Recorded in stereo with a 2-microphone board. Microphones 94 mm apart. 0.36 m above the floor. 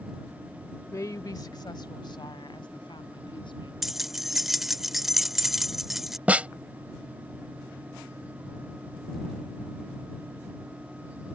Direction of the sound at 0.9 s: 30° left (ahead or behind).